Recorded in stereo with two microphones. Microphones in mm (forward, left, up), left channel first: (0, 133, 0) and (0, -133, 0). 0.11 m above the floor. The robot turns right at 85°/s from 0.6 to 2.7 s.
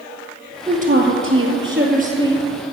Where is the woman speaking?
155° right, 2 m; by 2.5 s 5° right, 2 m.